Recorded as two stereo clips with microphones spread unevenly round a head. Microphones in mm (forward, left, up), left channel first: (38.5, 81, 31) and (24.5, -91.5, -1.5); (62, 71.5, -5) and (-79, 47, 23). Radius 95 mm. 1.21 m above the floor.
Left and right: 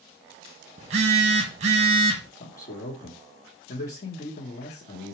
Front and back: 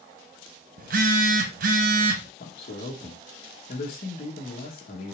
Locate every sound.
0.8 s a phone buzzing: 155° right, 0.8 m
2.4 s a man speaking: 40° left, 1.4 m